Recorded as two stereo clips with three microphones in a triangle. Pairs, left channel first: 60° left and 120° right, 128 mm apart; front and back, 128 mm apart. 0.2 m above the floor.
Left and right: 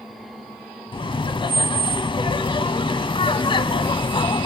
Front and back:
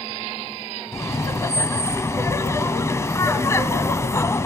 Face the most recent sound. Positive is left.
turn(degrees=55)